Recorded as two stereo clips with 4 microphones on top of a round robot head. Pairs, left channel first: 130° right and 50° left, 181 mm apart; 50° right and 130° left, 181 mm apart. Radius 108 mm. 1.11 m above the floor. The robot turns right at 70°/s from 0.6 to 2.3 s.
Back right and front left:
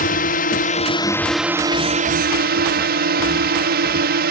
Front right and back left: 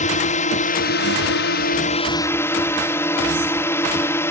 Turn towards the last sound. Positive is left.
turn(degrees=25)